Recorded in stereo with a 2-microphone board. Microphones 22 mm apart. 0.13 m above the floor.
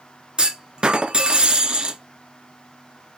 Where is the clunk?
40° right (ahead or behind), 0.6 m.